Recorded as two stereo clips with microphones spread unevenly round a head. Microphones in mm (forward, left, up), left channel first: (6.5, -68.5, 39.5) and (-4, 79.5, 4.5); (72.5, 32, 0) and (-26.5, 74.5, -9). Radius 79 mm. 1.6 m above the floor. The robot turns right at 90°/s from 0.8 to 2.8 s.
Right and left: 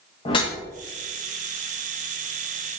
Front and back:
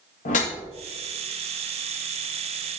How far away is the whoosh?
About 1.0 m.